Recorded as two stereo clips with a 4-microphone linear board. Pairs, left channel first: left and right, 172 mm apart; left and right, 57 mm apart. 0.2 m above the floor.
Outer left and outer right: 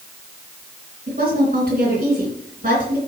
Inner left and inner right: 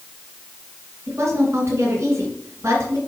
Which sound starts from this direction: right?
A woman speaking, at 1.1 s.